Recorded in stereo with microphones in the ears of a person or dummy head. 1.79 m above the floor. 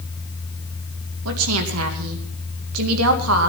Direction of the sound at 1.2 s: 80° right.